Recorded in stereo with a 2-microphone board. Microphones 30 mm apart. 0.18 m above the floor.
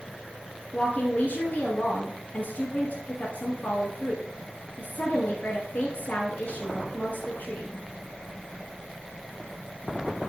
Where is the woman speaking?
55° left (ahead or behind), 2 m.